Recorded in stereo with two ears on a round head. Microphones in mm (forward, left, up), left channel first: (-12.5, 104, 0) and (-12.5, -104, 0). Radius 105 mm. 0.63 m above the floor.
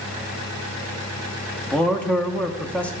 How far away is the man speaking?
About 0.6 m.